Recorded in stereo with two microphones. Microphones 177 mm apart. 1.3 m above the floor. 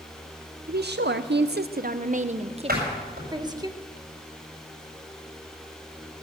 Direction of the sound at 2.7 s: 60° right (ahead or behind).